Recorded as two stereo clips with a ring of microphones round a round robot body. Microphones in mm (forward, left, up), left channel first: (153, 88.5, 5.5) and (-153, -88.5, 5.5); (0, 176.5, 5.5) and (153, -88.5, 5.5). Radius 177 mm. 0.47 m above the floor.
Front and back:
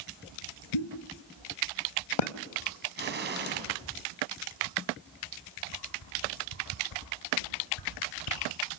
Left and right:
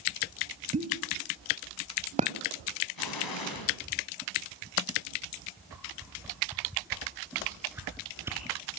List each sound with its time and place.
0.7 s a pop: 10° left, 0.9 m
3.0 s an explosion: 150° left, 3.5 m
5.7 s a whoosh: 25° left, 3.5 m